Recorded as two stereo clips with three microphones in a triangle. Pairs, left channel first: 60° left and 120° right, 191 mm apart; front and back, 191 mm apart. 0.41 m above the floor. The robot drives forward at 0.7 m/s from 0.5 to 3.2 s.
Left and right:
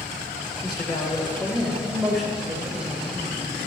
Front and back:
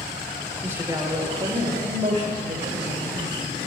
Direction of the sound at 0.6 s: 105° left.